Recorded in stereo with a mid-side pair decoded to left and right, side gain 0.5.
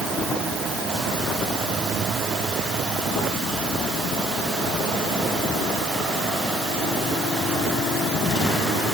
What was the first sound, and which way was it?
Only background noise.